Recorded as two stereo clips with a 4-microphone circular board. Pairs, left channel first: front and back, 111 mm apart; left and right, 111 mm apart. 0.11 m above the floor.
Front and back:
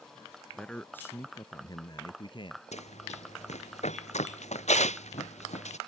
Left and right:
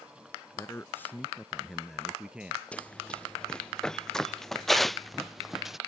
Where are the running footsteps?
10° left; by 5.8 s 5° right.